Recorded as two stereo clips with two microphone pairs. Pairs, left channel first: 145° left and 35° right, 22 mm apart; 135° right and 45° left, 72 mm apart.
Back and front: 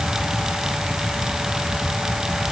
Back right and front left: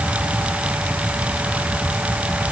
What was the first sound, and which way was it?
Only background noise.